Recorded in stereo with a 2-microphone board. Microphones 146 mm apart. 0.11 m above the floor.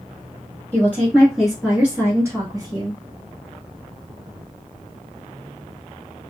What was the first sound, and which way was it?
A woman speaking, 15° left (ahead or behind).